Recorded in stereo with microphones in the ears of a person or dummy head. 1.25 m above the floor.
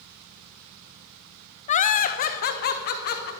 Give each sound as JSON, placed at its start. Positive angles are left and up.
{"t": 1.7, "sound": "laughter", "side_deg": 40, "distance_m": 0.6}